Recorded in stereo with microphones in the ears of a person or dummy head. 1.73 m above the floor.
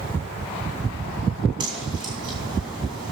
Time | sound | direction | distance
1.6 | a whoosh | 25° right (ahead or behind) | 3 m